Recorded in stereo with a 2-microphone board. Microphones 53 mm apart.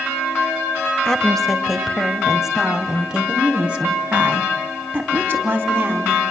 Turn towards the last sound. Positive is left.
turn(degrees=-35)  # may be behind; listen again after turning